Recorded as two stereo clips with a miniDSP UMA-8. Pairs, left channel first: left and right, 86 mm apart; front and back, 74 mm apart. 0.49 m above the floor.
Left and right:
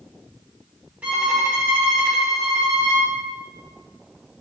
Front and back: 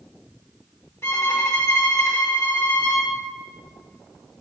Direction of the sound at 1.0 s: 30° right.